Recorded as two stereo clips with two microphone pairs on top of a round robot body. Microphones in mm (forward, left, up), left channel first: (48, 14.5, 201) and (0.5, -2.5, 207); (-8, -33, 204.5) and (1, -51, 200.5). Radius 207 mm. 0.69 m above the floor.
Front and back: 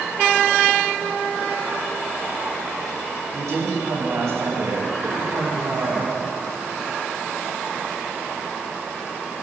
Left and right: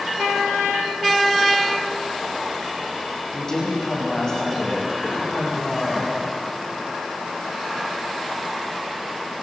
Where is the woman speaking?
175° right, 6 m; by 6.1 s 165° left, 6.5 m.